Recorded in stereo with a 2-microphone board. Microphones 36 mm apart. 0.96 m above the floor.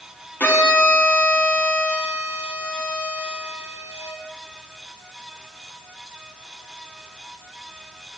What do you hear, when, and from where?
0.4 s a violin: 65° left (ahead or behind), 0.9 m